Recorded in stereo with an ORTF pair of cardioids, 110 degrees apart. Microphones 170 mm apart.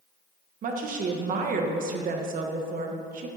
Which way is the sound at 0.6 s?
55° right.